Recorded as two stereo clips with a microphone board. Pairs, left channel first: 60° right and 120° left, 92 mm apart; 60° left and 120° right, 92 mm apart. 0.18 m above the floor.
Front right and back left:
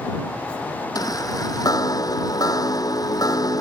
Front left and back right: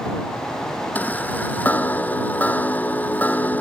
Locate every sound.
0.9 s a chime: 10° right